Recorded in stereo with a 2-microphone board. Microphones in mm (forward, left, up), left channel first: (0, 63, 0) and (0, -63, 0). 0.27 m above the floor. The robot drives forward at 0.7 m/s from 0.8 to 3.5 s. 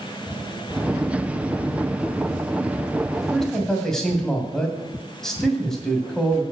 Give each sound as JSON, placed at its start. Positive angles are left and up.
{"t": 3.1, "sound": "a man speaking", "side_deg": 5, "distance_m": 2.0}